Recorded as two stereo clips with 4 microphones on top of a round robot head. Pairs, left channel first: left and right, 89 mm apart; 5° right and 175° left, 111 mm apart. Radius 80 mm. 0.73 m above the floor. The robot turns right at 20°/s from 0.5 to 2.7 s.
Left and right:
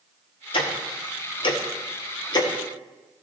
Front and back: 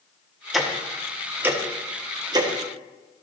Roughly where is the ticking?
Left.